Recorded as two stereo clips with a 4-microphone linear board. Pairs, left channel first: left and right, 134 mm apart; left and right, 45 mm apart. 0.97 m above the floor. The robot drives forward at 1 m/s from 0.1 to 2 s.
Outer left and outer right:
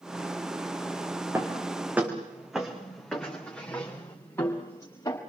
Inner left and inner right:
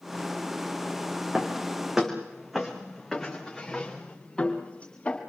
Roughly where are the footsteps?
Centre.